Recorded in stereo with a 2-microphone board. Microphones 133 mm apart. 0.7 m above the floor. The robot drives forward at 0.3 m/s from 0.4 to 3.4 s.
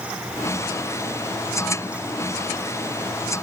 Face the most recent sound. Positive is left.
No sound to turn to.